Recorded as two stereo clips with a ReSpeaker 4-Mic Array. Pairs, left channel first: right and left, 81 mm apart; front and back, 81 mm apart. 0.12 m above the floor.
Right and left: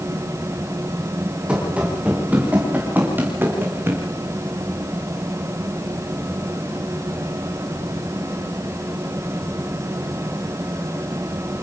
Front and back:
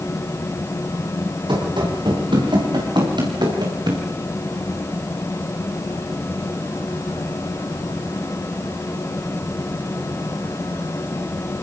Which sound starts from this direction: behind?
Running footsteps, at 1.5 s.